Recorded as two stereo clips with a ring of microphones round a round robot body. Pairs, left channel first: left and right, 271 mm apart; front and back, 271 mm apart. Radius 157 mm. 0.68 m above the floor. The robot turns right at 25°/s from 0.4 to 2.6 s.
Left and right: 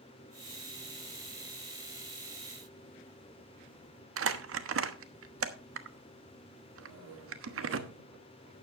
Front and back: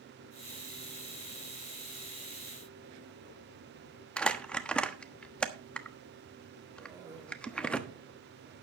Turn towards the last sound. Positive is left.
turn(degrees=-105)